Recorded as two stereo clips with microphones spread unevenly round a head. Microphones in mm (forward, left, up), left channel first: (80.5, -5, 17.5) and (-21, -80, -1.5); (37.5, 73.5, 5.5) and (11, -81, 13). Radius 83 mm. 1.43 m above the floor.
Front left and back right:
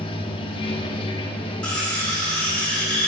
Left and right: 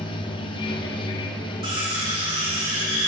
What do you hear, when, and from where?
0.0 s running water: 25° left, 0.7 m
1.6 s cutlery clinking: 45° right, 3 m